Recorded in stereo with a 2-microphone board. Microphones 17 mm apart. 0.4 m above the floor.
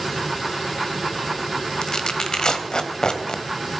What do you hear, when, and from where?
1.8 s tearing paper: 50° left (ahead or behind), 1.3 m